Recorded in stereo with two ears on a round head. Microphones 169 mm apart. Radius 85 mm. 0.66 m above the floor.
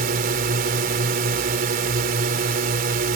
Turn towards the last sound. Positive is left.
turn(degrees=-50)  # may be behind; listen again after turning